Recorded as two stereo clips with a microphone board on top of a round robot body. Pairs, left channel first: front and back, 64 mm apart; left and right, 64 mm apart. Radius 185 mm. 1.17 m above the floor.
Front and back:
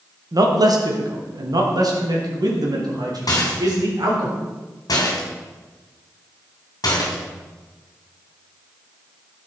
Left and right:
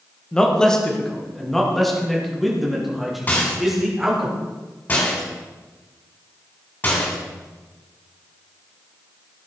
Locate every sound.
0.3 s a man speaking: 165° left, 2 m; by 4.3 s 175° right, 4.5 m
3.3 s a rattle: 25° left, 2.5 m